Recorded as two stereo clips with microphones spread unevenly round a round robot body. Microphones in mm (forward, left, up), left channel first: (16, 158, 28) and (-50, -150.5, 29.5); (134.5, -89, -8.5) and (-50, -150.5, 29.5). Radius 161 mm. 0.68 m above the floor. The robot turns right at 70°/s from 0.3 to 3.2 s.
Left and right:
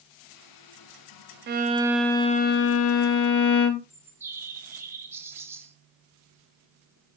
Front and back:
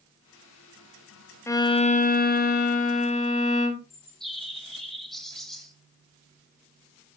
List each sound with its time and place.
1.5 s a violin: 50° right, 0.9 m; by 3.8 s 75° left, 0.9 m
3.9 s a bird: 30° right, 1.2 m